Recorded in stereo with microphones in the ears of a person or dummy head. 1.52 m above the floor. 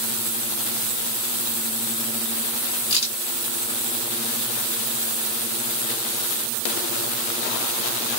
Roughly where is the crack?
Left.